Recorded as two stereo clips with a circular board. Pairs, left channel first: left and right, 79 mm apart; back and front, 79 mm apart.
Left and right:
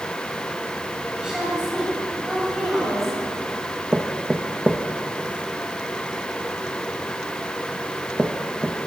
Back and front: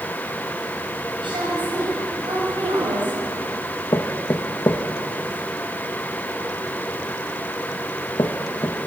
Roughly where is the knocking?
Behind right.